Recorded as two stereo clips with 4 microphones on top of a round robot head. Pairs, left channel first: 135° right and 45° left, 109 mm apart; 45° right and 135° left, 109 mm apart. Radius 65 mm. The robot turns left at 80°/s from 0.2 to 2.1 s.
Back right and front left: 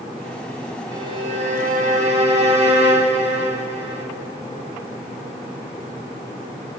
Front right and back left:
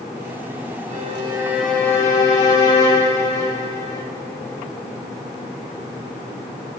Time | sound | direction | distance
0.9 | a violin | 105° left | 2 m